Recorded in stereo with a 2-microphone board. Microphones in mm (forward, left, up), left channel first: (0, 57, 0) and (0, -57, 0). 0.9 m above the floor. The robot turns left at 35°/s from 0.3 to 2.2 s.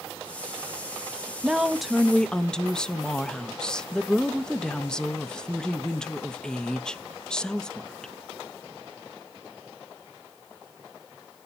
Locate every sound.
1.4 s a woman speaking: 10° right (ahead or behind), 0.8 m; by 8.1 s 5° left (ahead or behind), 0.8 m